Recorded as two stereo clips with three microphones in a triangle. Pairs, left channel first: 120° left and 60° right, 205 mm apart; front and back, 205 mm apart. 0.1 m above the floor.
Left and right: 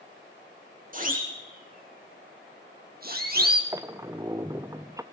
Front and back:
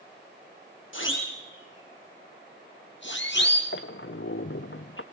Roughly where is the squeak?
Ahead.